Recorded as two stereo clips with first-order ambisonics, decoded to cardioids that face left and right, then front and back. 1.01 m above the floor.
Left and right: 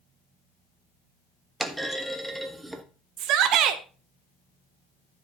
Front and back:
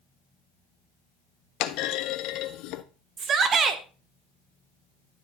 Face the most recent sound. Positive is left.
turn(degrees=-125)